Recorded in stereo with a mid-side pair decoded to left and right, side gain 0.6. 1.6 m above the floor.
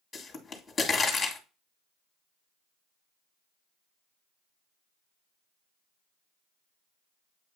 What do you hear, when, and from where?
0.1 s a pop: 25° left, 1.8 m